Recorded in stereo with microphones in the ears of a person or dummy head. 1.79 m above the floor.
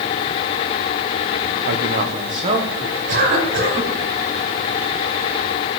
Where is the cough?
50° right (ahead or behind), 6 m.